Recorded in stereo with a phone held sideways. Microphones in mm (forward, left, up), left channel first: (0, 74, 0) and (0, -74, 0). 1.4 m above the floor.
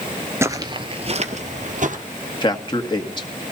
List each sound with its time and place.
0.4 s footsteps: 20° right (ahead or behind), 1.5 m; by 2.0 s 60° right (ahead or behind), 2.5 m
2.4 s a man speaking: 30° left (ahead or behind), 2 m